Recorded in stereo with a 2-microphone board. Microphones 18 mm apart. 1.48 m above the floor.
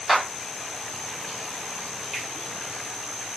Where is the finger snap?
10° right (ahead or behind), 1.2 m.